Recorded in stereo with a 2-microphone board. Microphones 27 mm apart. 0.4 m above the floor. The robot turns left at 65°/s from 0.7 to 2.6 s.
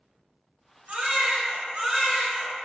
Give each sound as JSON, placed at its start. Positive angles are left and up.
{"t": 0.9, "sound": "a baby crying", "azimuth_deg": -70, "distance_m": 0.9}